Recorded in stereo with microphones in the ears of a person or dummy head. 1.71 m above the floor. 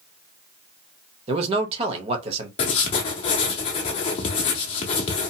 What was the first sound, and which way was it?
A man speaking, 35° right (ahead or behind).